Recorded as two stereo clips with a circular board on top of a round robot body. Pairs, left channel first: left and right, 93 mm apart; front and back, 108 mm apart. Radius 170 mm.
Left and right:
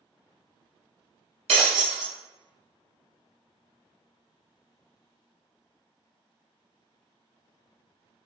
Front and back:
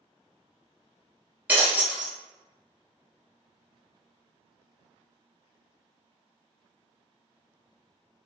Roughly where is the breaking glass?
Right.